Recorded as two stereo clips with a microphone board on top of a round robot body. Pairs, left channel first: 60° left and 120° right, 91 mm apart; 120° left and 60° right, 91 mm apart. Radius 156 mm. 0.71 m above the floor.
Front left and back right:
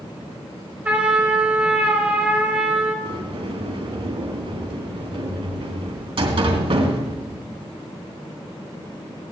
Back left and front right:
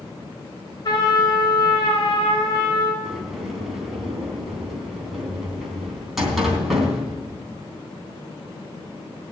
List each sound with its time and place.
0.8 s a trumpet: 165° left, 4.5 m
3.0 s a sliding door: 145° right, 3 m